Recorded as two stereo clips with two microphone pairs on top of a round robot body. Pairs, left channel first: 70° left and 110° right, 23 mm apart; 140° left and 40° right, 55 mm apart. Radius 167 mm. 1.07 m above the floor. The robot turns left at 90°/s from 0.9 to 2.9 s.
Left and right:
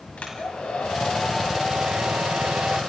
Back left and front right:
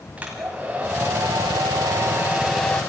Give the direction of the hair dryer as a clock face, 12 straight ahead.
11 o'clock.